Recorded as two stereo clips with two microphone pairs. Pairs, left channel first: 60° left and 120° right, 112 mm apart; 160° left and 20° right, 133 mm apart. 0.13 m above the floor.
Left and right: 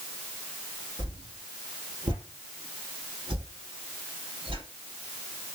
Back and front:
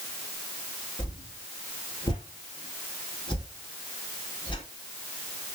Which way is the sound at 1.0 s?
150° right.